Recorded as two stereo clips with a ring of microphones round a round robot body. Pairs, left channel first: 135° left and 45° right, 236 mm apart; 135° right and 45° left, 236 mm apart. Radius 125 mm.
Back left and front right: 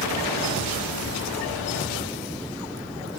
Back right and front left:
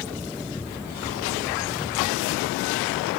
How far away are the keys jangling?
About 1.3 m.